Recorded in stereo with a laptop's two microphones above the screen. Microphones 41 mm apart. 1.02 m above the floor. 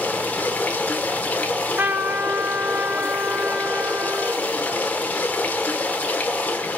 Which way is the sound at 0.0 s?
40° left (ahead or behind).